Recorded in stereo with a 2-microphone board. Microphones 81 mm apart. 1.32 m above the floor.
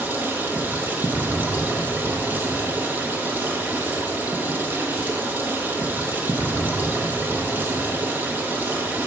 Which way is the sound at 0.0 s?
25° right (ahead or behind).